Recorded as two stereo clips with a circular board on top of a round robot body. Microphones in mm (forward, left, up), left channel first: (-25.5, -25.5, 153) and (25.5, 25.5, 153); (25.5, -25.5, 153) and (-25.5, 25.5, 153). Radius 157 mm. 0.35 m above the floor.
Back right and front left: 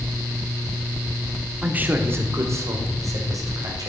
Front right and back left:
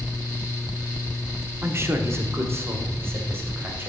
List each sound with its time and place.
1.6 s a man speaking: 105° left, 1.2 m; by 3.9 s 75° left, 3 m